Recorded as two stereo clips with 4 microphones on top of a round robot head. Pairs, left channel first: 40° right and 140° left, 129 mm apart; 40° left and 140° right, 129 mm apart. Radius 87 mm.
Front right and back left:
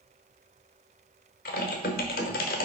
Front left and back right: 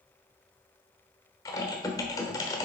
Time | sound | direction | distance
1.4 | typing on a keyboard | 25° right | 1.0 m